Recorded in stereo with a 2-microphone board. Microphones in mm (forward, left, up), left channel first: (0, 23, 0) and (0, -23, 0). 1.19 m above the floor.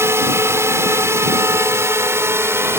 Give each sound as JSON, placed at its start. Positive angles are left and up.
{"t": 0.0, "sound": "a drone", "side_deg": -75}